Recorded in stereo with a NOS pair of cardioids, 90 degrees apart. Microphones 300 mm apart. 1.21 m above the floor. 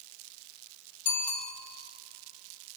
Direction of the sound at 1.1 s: 70° left.